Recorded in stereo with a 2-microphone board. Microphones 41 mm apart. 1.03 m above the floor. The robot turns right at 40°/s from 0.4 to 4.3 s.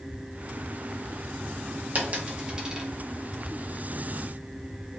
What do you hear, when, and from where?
1.9 s a dropped coin: 40° right (ahead or behind), 0.6 m; by 2.9 s 10° right (ahead or behind), 0.6 m